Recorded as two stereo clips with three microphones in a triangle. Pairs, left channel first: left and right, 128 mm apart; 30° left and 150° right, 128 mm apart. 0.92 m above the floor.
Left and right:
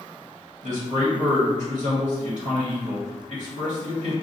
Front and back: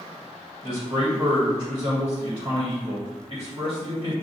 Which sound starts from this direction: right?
A man speaking, at 0.6 s.